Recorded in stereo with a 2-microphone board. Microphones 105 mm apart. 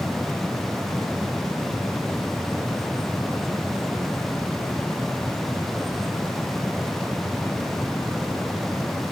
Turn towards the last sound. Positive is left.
No sound to turn to.